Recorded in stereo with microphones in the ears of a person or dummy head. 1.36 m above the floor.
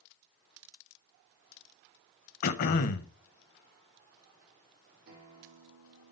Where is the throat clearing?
50° left (ahead or behind), 0.8 m.